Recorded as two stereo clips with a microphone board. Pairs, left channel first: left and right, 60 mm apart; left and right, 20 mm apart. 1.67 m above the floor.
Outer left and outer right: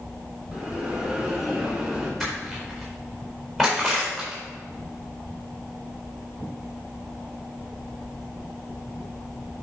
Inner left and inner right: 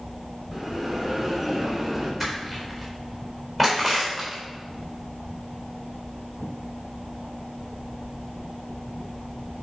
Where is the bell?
10° right (ahead or behind), 2.5 m.